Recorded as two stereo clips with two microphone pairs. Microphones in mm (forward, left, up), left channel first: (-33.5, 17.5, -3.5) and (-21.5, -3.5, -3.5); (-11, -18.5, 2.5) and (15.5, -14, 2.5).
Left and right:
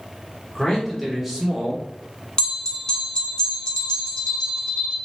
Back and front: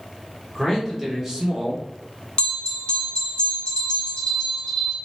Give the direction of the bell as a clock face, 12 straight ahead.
7 o'clock.